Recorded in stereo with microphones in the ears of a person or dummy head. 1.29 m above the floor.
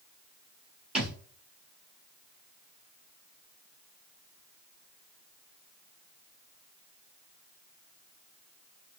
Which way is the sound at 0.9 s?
5° right (ahead or behind).